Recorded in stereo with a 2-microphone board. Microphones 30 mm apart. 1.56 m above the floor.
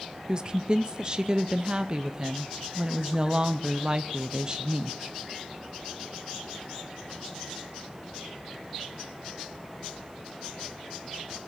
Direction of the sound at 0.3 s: 25° right (ahead or behind).